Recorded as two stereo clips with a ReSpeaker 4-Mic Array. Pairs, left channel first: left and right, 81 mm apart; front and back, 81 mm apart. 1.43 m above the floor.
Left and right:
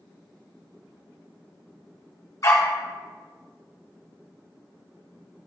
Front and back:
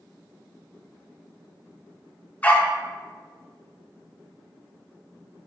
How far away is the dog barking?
About 1.5 m.